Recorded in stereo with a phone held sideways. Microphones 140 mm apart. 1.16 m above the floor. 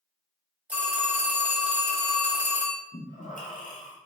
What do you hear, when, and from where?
0.7 s a phone ringing: 10° right (ahead or behind), 1.1 m
2.9 s breathing: 65° left (ahead or behind), 0.7 m